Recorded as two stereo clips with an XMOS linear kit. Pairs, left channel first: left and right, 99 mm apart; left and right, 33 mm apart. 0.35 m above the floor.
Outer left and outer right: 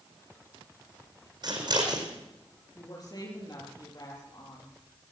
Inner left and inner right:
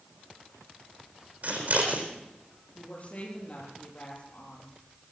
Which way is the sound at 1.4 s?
50° right (ahead or behind).